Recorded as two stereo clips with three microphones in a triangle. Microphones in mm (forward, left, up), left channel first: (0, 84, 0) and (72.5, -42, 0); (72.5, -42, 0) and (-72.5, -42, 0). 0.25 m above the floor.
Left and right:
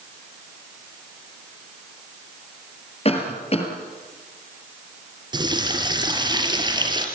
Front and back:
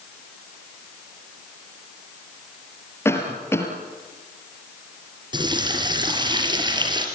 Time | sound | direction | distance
3.0 | a cough | 75° left | 5 m
5.3 | a running tap | 120° right | 4 m